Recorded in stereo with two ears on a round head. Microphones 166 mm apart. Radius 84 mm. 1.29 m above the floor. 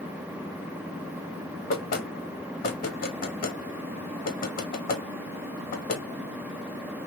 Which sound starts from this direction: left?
Knocking, at 1.7 s.